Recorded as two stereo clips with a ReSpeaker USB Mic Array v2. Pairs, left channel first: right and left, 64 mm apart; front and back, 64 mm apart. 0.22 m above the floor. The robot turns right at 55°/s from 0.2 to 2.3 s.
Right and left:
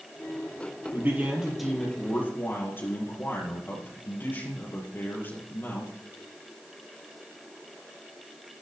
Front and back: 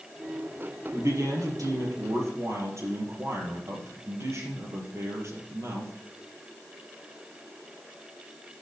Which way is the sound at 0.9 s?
140° left.